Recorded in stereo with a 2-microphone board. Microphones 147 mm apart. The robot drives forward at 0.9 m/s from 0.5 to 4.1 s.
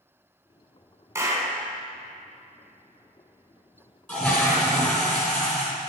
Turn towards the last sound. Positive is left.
turn(degrees=15)  # may be behind; listen again after turning